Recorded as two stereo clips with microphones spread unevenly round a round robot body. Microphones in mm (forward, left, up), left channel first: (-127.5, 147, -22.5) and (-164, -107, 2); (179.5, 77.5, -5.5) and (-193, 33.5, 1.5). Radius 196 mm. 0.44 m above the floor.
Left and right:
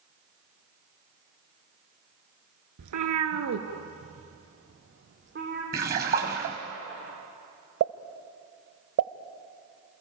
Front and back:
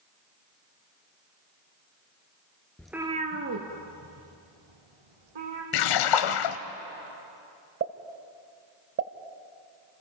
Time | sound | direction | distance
2.8 | a cat meowing | 80° right | 1.5 m
5.7 | a splash | 30° right | 1.0 m
7.8 | a pop | 110° right | 1.0 m